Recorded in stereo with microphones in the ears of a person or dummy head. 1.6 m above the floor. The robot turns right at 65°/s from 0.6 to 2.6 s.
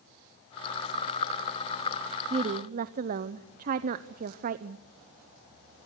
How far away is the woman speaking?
About 0.8 m.